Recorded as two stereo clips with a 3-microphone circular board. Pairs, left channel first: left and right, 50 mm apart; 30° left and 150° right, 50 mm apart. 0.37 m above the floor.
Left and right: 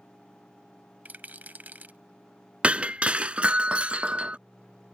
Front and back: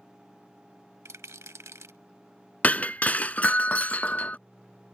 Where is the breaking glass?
25° right.